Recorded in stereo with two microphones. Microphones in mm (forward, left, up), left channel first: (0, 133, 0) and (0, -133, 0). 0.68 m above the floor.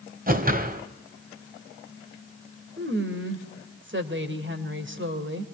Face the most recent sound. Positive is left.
turn(degrees=-45)  # may be behind; listen again after turning